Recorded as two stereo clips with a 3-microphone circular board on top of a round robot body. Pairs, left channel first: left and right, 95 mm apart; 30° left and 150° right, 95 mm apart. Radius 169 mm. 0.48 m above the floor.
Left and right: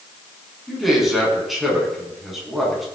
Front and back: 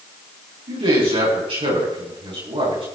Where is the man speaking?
Straight behind, 6 m.